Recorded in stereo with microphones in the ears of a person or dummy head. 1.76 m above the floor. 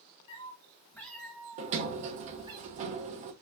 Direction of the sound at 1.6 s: 40° right (ahead or behind).